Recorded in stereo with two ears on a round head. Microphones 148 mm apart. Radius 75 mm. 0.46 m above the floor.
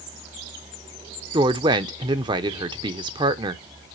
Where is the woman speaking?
30° right (ahead or behind), 0.8 m.